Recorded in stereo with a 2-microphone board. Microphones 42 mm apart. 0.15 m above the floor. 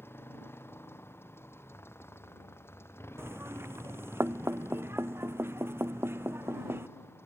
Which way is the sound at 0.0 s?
70° left (ahead or behind).